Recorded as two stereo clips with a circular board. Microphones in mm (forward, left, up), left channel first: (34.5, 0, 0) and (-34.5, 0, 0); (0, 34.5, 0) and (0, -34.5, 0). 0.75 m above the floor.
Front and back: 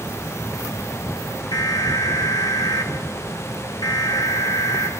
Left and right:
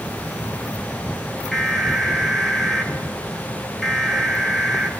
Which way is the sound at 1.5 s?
Straight ahead.